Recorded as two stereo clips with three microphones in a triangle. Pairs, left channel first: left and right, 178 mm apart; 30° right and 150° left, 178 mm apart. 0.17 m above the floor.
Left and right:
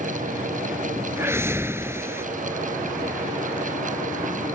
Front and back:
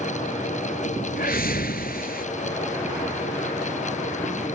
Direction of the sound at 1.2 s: 15° right.